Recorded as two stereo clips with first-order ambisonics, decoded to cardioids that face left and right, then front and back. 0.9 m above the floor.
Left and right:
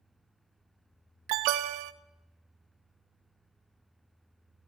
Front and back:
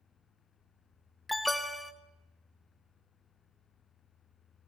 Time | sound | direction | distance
1.3 | an alarm | 85° right | 0.7 m